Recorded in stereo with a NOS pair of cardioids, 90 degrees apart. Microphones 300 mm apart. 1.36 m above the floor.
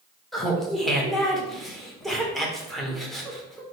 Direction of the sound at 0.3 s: Straight ahead.